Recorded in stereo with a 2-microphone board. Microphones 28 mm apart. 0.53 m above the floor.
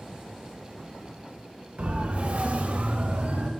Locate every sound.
1.8 s a siren: 55° right (ahead or behind), 2.5 m; by 3.5 s 65° right (ahead or behind), 3.5 m